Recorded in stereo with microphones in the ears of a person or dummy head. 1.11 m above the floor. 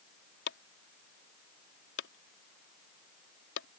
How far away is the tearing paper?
I don't hear tearing paper.